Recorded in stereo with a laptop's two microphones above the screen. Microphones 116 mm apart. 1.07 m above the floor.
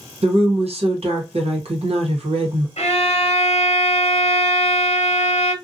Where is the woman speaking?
60° right (ahead or behind), 1.0 m.